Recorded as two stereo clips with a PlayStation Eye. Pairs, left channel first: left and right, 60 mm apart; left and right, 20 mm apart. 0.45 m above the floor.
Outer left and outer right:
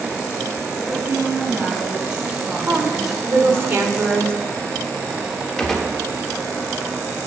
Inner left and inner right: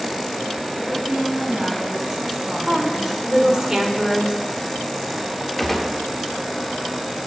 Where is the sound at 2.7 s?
40° right (ahead or behind), 1.7 m.